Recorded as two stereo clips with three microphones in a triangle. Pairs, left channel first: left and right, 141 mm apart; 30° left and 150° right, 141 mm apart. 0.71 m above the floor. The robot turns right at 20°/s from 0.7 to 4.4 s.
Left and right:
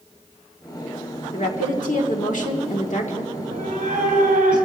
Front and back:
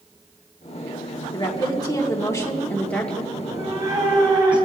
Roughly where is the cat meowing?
Behind right.